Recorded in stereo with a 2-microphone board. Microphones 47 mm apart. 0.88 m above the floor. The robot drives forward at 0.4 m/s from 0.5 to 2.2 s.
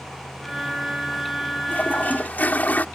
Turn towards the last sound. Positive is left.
turn(degrees=40)  # may be behind; listen again after turning